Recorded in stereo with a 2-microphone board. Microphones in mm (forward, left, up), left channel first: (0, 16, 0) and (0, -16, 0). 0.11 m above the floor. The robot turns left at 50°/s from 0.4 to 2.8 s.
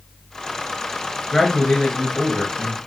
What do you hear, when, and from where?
1.3 s a man speaking: 130° left, 1.7 m; by 2.8 s 60° left, 1.7 m